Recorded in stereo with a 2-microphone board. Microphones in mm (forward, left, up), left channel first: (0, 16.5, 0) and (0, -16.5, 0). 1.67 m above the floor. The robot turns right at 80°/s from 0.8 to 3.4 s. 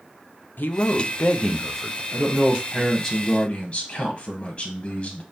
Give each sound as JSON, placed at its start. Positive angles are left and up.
{"t": 0.6, "sound": "a man speaking", "azimuth_deg": 95, "distance_m": 0.7}
{"t": 2.1, "sound": "a man speaking", "azimuth_deg": -65, "distance_m": 1.0}